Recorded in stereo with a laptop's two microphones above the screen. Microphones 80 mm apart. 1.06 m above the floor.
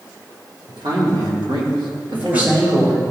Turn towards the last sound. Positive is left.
turn(degrees=-20)  # may be behind; listen again after turning